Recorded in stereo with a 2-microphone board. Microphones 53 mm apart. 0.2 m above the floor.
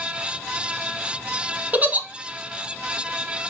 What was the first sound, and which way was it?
A giggle, 30° right (ahead or behind).